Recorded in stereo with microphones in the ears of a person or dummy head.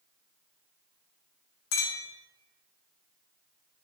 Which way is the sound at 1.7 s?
75° left (ahead or behind).